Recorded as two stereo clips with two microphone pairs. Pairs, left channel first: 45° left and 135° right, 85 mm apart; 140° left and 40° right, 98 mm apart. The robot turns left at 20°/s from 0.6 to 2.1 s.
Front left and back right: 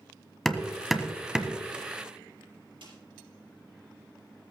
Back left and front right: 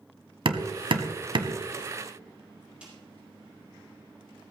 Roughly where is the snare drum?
Behind right.